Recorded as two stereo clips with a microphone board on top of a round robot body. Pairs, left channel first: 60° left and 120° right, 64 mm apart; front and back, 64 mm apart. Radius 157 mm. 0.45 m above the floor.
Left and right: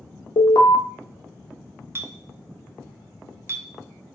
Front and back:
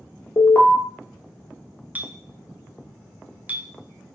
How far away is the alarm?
About 1.1 m.